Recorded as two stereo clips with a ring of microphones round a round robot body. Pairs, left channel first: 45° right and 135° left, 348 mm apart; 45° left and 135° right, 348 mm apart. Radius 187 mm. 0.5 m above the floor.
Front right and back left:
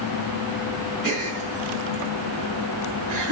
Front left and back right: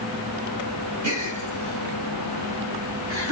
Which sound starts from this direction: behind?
A gasp, at 1.0 s.